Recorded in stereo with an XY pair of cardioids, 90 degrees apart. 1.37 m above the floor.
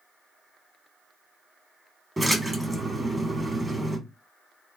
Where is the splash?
15° right, 1.3 m.